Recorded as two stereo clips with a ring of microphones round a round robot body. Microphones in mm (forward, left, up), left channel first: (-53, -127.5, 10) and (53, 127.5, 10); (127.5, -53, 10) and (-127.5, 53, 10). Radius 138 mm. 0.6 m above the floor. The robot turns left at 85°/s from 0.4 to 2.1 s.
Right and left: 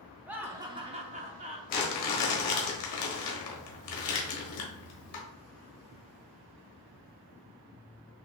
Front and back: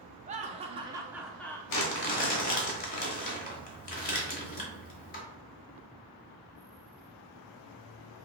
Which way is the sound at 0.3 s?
145° left.